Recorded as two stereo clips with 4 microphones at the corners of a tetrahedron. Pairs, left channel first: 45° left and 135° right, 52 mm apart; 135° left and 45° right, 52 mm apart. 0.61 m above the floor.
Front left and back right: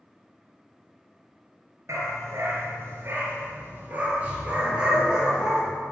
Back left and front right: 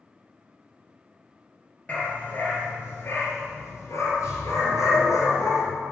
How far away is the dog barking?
About 3 m.